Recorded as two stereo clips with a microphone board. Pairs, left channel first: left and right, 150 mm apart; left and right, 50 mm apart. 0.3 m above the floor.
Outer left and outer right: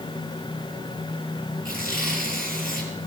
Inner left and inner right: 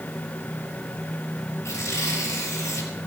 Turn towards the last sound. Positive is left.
turn(degrees=75)  # may be behind; listen again after turning